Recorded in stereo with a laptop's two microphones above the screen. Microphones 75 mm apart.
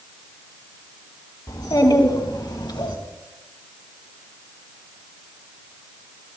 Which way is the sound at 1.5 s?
65° left (ahead or behind).